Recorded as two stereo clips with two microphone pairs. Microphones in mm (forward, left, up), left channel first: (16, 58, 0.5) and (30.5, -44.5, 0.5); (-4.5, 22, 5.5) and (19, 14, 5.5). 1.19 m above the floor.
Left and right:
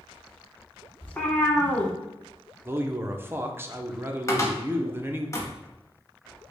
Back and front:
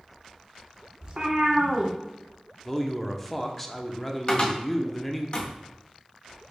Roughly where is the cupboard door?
Behind left.